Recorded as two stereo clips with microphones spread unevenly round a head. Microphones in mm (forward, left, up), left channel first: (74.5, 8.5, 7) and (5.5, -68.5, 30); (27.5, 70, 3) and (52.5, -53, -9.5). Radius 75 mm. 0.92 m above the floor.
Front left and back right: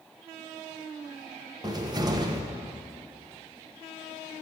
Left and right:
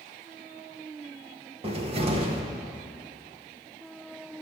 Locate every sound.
1.6 s a cupboard door: 80° right, 1.0 m